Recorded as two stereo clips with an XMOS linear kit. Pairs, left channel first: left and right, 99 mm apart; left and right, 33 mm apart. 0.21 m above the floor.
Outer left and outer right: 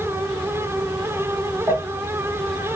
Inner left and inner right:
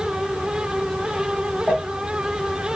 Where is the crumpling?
25° right (ahead or behind), 2.0 m.